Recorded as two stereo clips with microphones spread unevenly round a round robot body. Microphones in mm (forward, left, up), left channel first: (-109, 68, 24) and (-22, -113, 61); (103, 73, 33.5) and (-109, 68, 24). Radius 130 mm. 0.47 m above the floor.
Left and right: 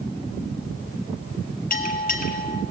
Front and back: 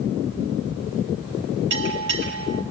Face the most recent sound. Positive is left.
turn(degrees=155)